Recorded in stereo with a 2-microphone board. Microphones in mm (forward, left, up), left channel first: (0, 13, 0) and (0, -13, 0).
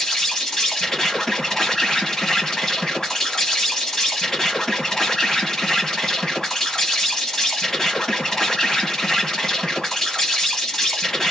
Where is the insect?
20° left (ahead or behind), 1.0 m.